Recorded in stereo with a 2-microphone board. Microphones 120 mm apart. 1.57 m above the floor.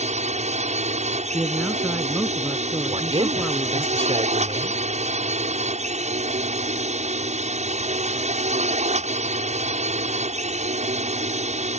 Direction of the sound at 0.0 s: 70° right (ahead or behind).